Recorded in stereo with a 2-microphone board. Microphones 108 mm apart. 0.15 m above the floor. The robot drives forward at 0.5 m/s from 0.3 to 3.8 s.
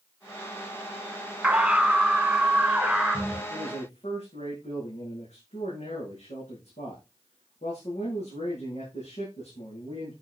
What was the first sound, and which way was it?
A scream, 10° right (ahead or behind).